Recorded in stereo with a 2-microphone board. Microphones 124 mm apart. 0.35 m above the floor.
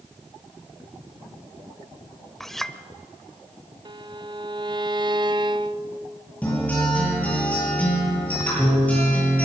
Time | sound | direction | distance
2.4 | a clink | 5° left (ahead or behind) | 0.9 m
3.9 | a violin | 35° right (ahead or behind) | 0.5 m
6.4 | a guitar | 10° left (ahead or behind) | 9.5 m